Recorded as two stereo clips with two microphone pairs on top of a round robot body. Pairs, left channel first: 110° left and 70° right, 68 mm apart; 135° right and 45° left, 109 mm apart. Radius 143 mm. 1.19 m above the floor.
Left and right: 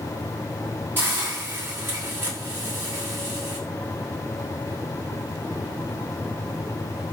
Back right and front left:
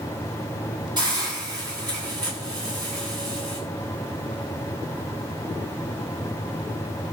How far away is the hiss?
About 9 m.